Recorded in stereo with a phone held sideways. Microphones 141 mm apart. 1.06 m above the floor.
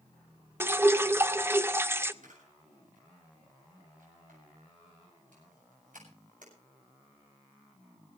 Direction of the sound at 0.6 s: 20° right (ahead or behind).